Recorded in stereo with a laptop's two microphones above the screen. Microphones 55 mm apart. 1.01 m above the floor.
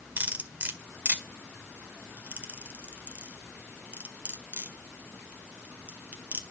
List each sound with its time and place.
0.2 s cutlery clinking: 30° right (ahead or behind), 1.8 m